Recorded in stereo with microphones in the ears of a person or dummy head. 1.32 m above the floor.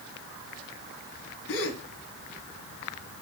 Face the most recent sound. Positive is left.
turn(degrees=65)  # may be behind; listen again after turning